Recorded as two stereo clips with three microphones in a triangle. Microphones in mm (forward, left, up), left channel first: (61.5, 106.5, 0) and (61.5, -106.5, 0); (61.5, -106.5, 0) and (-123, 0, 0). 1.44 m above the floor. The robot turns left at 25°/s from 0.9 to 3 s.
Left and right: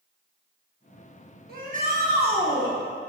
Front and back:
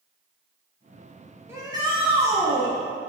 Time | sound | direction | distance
1.5 | a shout | 130° right | 1.2 m